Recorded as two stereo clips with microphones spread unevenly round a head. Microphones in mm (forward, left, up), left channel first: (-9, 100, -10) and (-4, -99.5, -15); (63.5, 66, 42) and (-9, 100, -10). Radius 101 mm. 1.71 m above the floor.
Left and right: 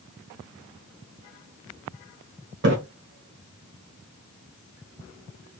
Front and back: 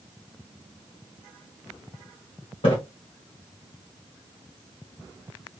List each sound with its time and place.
2.6 s a splash: 50° right, 1.4 m